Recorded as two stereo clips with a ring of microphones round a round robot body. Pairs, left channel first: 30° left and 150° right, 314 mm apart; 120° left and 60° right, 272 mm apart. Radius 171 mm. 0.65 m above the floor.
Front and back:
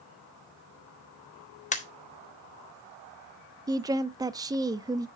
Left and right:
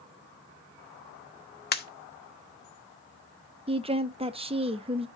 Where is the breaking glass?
No breaking glass in this recording.